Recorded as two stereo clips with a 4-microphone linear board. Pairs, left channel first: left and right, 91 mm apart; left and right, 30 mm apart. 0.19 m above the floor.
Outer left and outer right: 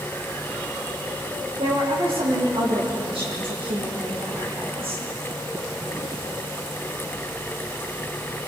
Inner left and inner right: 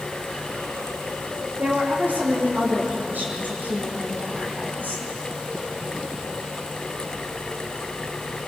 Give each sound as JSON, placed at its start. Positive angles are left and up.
{"t": 1.6, "sound": "a woman speaking", "side_deg": -85, "distance_m": 9.0}